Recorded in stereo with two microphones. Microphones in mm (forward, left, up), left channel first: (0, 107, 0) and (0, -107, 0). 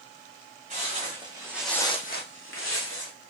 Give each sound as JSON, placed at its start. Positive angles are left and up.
{"t": 0.7, "sound": "footsteps", "side_deg": -35, "distance_m": 1.9}